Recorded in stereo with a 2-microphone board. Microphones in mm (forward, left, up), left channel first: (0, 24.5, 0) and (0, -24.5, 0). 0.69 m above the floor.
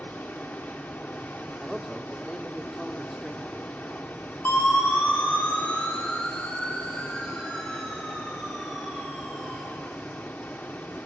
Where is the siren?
45° left (ahead or behind), 4 m; by 9.6 s 10° right (ahead or behind), 6.5 m.